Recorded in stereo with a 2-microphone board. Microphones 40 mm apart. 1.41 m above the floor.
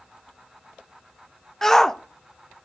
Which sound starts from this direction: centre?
A shout, at 1.6 s.